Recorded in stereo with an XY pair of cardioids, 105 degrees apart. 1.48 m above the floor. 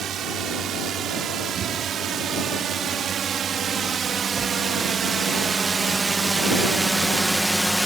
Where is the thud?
45° right.